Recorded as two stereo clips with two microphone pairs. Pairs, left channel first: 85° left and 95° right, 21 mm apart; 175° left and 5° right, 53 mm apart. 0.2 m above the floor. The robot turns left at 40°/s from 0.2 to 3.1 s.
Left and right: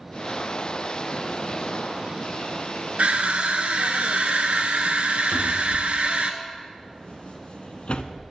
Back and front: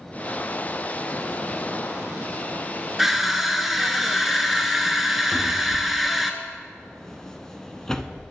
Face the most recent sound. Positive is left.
turn(degrees=95)